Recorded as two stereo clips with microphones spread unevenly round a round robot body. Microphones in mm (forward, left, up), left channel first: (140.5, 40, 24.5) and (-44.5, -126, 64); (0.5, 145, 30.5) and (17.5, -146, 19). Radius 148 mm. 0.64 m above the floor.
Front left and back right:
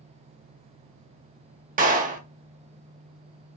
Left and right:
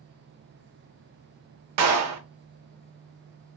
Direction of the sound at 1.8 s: 80° right.